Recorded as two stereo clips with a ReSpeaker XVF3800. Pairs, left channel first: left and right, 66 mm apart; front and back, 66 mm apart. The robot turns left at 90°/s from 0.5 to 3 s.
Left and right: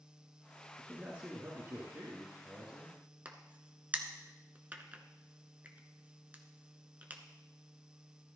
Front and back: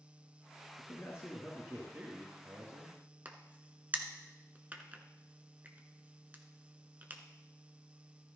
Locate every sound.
0.8 s a man speaking: straight ahead, 2 m; by 3.0 s 165° left, 2 m
3.2 s a crack: 135° right, 1.1 m